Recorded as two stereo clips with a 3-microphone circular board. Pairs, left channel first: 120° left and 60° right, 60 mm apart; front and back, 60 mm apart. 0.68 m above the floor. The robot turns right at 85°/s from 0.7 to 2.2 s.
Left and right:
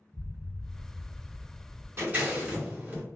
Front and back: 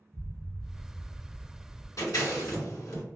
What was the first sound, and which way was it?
An explosion, 95° right.